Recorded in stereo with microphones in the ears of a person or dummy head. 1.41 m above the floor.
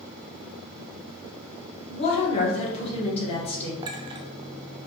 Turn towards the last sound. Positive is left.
turn(degrees=-25)  # may be behind; listen again after turning